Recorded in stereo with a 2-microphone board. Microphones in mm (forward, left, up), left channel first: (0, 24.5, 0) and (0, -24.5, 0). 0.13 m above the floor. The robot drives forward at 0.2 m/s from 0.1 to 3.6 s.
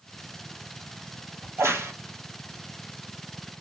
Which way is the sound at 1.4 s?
75° right (ahead or behind).